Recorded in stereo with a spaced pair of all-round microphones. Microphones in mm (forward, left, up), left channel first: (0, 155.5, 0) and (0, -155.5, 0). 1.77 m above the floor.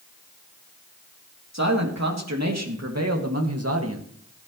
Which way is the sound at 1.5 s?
60° right (ahead or behind).